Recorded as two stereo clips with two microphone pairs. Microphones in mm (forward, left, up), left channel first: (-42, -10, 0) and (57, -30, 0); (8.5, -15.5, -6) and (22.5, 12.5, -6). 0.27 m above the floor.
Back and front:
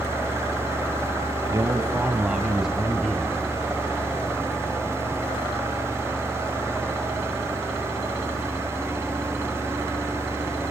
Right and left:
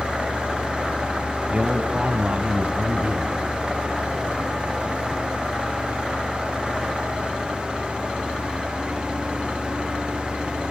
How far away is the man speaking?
About 2 m.